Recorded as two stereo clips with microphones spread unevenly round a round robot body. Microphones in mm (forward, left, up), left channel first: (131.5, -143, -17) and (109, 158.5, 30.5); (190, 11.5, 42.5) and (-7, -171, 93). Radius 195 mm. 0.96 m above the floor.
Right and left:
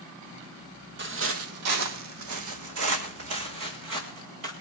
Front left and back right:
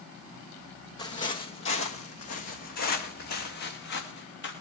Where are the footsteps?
125° left, 1.3 m; by 4.5 s 90° left, 4 m.